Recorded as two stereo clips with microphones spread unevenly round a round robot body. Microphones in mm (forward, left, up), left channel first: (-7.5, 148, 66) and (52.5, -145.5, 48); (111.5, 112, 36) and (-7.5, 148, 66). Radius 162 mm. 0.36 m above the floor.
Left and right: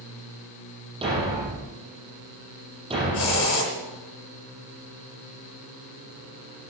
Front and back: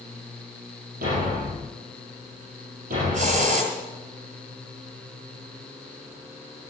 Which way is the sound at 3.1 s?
150° left.